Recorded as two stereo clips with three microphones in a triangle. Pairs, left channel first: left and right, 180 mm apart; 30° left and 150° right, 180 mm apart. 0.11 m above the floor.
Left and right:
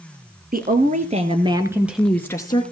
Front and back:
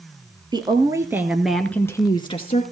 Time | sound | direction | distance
0.5 | a woman speaking | 90° right | 1.8 m